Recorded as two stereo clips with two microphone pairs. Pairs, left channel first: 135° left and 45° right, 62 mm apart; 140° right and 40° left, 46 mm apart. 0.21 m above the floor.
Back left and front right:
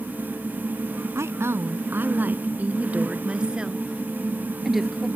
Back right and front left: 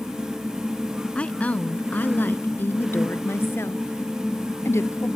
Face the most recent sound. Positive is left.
turn(degrees=-130)